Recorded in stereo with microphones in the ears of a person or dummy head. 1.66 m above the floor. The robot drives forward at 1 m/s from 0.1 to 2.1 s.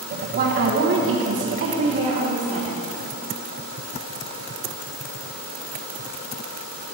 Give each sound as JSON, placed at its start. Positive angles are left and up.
{"t": 0.3, "sound": "a woman speaking", "side_deg": -45, "distance_m": 1.3}